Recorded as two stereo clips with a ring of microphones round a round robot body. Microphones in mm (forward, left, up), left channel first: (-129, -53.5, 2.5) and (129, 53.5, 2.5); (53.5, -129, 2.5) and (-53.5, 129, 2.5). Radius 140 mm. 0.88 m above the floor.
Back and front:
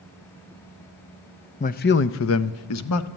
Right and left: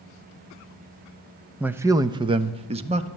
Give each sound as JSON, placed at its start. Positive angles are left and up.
{"t": 1.6, "sound": "a man speaking", "azimuth_deg": -165, "distance_m": 0.5}